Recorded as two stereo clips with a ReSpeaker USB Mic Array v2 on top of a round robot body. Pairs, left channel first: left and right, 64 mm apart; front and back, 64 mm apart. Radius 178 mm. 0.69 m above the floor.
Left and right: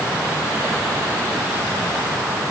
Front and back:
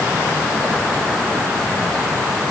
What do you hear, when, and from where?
Only background noise.